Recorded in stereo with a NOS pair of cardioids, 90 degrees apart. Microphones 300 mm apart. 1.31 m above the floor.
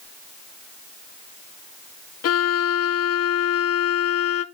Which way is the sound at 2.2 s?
55° left.